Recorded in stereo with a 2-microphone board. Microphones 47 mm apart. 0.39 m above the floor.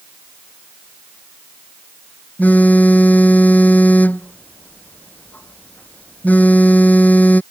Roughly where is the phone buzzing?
Left.